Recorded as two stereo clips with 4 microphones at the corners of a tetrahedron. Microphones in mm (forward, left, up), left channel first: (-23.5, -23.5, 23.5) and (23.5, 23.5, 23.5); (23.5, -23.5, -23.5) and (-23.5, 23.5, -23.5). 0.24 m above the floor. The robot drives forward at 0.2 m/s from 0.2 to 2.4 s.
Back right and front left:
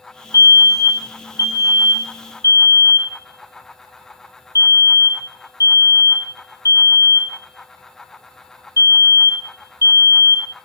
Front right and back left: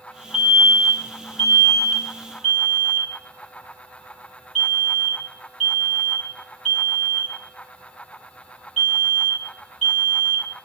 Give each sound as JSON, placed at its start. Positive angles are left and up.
{"t": 0.3, "sound": "a fire alarm", "azimuth_deg": -140, "distance_m": 6.0}